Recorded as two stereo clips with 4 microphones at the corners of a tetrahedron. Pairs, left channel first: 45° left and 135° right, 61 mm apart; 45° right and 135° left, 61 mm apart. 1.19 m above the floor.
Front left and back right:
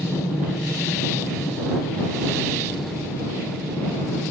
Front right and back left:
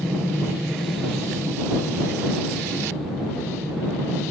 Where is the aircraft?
75° left.